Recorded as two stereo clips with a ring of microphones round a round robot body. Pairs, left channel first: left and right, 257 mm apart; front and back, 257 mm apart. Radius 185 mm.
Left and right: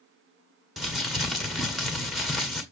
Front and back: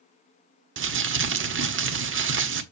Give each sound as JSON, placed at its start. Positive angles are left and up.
{"t": 0.8, "sound": "crumpling", "azimuth_deg": 180, "distance_m": 1.5}